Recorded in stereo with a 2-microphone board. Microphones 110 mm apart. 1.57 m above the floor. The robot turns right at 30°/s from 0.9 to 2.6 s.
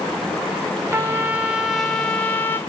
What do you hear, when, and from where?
0.9 s a trumpet: 25° right, 1.2 m; by 2.6 s 25° left, 1.2 m